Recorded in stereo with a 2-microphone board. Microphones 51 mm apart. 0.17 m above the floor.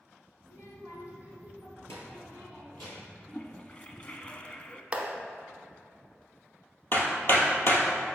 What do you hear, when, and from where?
0.4 s a child speaking: 55° left (ahead or behind), 2 m; by 3.2 s 45° left (ahead or behind), 4 m
3.3 s a toilet flushing: 25° left (ahead or behind), 0.6 m
4.9 s a clap: 20° right (ahead or behind), 0.9 m
6.9 s hammering: 45° left (ahead or behind), 1.5 m